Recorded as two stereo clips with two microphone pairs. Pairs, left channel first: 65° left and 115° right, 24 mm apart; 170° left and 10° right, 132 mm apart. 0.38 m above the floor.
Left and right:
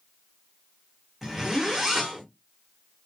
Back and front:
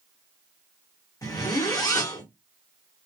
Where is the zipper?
170° left, 0.9 m.